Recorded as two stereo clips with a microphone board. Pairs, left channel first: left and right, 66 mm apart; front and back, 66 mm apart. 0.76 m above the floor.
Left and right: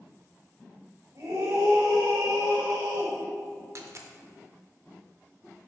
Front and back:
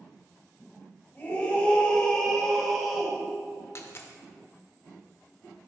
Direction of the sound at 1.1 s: 60° right.